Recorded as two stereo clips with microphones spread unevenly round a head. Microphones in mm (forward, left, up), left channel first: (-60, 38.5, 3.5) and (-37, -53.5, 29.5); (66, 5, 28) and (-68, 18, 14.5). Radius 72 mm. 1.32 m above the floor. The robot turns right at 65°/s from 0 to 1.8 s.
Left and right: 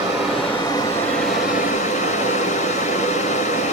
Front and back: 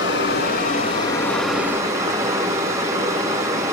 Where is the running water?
15° right, 2.5 m; by 3.7 s 100° left, 2.5 m.